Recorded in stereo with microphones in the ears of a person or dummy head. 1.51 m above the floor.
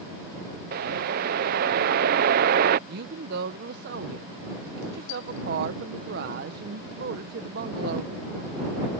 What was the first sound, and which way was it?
A whoosh, 55° right (ahead or behind).